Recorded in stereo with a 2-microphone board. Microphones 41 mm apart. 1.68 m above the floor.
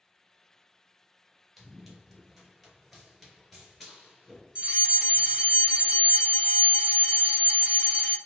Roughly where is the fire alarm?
Right.